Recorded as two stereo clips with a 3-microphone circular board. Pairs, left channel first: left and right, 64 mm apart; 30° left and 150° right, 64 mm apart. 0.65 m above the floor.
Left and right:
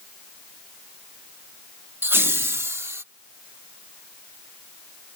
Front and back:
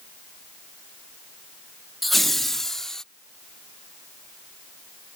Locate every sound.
2.0 s laughter: 60° right; by 3.0 s 50° right